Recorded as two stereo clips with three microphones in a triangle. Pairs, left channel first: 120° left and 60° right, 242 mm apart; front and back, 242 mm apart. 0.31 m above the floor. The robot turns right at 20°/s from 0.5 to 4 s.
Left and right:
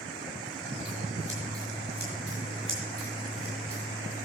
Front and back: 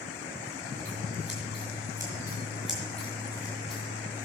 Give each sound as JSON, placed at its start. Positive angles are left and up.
{"t": 0.8, "sound": "scissors", "azimuth_deg": -130, "distance_m": 5.0}